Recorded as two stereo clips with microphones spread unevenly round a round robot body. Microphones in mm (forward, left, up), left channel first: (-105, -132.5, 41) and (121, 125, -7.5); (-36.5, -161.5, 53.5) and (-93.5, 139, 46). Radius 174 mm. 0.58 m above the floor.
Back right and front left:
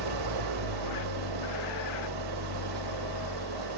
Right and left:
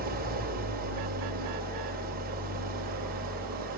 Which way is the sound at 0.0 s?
35° left.